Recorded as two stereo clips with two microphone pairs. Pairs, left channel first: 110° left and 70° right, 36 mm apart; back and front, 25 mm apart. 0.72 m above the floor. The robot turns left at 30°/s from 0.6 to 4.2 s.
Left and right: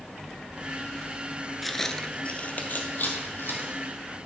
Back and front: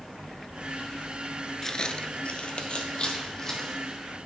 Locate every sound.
1.6 s footsteps: 155° right, 0.7 m; by 3.8 s 110° left, 2.5 m